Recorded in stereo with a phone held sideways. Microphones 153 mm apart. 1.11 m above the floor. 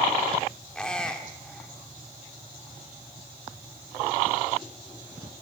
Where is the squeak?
5° left (ahead or behind), 2.5 m.